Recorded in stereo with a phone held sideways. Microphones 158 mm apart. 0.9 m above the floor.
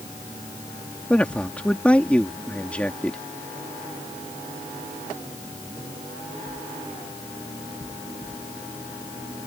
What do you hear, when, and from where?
1.1 s a man speaking: 10° left (ahead or behind)